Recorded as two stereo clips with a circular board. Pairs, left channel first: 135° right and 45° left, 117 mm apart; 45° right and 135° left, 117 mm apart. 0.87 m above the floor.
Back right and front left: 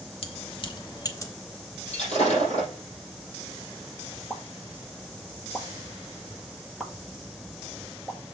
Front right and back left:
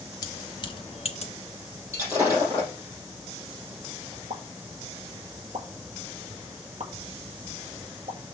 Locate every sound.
0.2 s keys jangling: 105° right, 1.0 m; by 1.3 s 70° right, 1.0 m
1.9 s breaking glass: 160° right, 5 m
4.3 s a pop: 135° left, 1.3 m